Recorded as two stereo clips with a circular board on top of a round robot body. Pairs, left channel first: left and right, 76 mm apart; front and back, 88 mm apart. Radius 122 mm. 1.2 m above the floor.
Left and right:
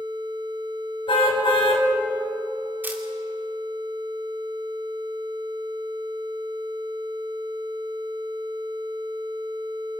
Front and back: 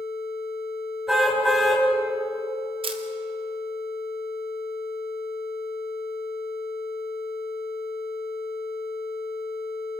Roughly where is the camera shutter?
Behind.